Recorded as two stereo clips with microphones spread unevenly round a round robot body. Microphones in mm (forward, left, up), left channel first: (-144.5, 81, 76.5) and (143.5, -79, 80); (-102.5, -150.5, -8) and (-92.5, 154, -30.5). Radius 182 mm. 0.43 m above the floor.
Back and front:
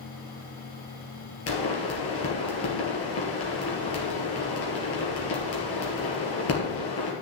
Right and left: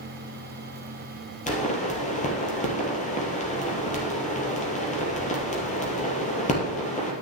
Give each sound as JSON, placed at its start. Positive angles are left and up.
{"t": 1.5, "sound": "a pop", "azimuth_deg": -160, "distance_m": 3.0}